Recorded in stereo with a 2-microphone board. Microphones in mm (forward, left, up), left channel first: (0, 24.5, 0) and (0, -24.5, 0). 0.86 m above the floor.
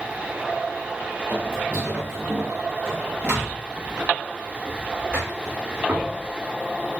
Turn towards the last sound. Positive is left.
turn(degrees=-30)  # may be behind; listen again after turning